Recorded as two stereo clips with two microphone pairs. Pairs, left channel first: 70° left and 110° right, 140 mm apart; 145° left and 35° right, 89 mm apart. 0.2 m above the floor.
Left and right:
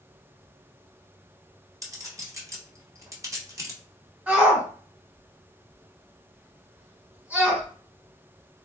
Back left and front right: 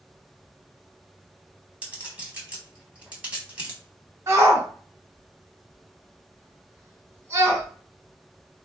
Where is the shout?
40° right, 1.1 m.